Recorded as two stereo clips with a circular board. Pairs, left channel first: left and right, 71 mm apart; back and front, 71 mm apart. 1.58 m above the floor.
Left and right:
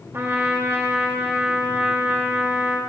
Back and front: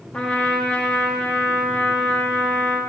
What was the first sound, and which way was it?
A trumpet, 115° right.